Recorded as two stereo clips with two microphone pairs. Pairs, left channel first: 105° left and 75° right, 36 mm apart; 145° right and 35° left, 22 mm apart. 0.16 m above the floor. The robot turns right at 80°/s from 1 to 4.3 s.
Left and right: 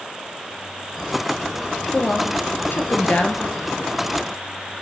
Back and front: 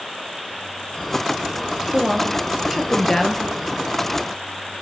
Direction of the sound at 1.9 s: 50° left.